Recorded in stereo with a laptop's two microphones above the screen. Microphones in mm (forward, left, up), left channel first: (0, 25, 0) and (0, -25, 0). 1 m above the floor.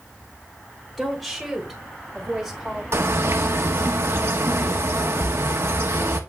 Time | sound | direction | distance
1.0 | a woman speaking | centre (ahead or behind) | 2.5 m
2.9 | a bird | 60° right (ahead or behind) | 0.8 m
5.2 | a splash | 70° right (ahead or behind) | 1.5 m